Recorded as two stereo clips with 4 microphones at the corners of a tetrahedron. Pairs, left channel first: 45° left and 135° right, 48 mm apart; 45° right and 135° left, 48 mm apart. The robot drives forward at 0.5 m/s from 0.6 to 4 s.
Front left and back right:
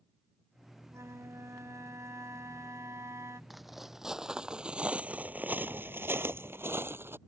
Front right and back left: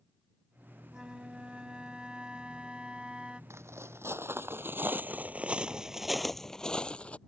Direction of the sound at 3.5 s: 135° left.